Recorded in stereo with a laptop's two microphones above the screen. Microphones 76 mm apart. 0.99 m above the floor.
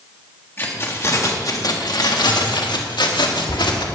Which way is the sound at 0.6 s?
30° left (ahead or behind).